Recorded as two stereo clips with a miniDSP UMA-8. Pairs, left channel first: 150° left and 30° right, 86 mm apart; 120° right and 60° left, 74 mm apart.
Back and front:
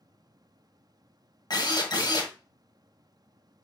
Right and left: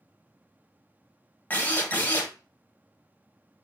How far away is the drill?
About 1.4 m.